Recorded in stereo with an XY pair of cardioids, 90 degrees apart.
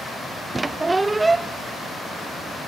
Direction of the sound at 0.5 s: 25° right.